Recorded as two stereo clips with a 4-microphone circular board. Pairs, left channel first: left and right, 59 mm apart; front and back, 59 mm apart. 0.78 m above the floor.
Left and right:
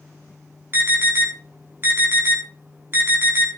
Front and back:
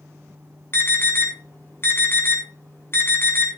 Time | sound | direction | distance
0.7 | an alarm | 45° right | 4 m